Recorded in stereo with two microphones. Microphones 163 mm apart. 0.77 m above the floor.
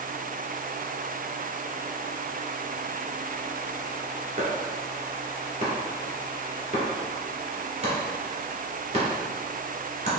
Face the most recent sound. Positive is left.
turn(degrees=-40)  # may be behind; listen again after turning